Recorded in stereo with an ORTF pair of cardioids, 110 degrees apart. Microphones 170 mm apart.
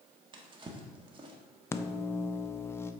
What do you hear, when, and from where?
0.3 s a drawer: 30° right, 1.4 m
1.7 s a microwave: 15° left, 0.6 m